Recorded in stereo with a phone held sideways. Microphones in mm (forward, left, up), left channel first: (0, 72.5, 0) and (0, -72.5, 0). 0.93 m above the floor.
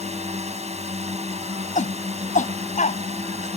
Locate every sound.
0.0 s a drone: 50° right (ahead or behind)
1.8 s a shout: 60° left (ahead or behind)